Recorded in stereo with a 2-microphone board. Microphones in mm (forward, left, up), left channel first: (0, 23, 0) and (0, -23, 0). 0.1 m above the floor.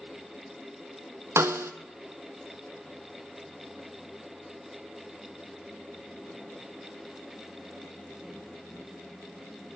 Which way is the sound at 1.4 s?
70° right (ahead or behind).